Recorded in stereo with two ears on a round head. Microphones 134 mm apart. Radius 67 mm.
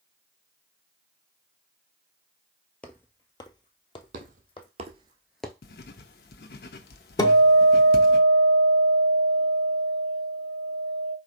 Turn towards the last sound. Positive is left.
turn(degrees=25)  # may be behind; listen again after turning